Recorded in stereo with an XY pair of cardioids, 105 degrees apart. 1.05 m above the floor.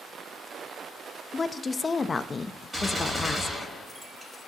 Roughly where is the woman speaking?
Ahead left.